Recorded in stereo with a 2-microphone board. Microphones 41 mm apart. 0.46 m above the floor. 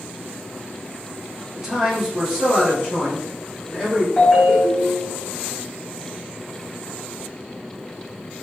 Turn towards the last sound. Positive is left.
turn(degrees=20)  # may be behind; listen again after turning